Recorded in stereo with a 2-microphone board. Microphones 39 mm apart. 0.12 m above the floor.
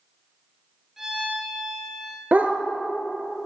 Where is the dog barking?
45° right (ahead or behind), 0.7 m.